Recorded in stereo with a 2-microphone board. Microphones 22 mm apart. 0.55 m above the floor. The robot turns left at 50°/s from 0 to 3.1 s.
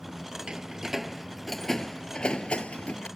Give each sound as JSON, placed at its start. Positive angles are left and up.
{"t": 0.5, "sound": "a door slam", "side_deg": -40}